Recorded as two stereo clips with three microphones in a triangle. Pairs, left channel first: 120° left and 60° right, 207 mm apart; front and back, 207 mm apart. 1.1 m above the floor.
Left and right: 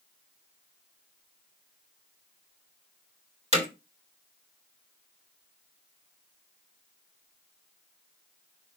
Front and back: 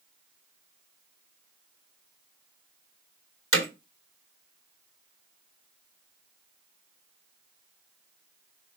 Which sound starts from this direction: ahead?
Hammering, at 3.5 s.